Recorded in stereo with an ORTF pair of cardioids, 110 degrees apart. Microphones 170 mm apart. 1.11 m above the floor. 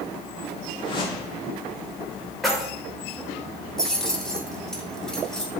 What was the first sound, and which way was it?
A whoosh, 30° left.